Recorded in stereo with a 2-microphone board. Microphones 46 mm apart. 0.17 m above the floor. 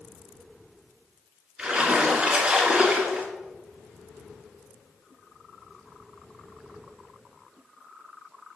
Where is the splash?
15° right (ahead or behind), 2 m.